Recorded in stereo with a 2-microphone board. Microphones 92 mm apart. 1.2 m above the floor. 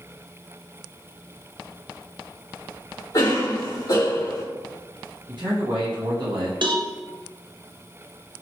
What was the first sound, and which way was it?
A cough, 40° left (ahead or behind).